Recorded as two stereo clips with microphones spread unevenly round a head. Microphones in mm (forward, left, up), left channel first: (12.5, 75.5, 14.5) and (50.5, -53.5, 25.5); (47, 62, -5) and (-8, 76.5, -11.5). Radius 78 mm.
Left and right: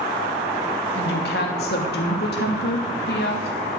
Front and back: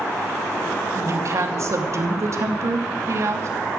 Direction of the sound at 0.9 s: 130° left.